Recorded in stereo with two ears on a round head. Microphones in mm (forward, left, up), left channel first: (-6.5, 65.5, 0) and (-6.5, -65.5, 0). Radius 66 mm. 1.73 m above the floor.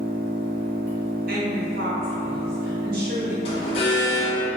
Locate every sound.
0.0 s an engine running: 15° right (ahead or behind), 0.9 m
1.3 s a woman speaking: 65° right (ahead or behind), 0.7 m
3.5 s an alarm: 40° left (ahead or behind), 0.6 m